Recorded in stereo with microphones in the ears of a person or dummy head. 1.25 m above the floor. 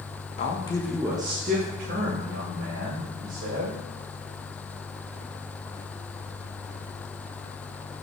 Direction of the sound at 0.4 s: 40° left (ahead or behind).